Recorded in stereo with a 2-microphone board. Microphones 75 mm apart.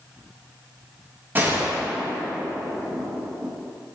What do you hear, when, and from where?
1.4 s a gunshot: 25° right (ahead or behind), 1.4 m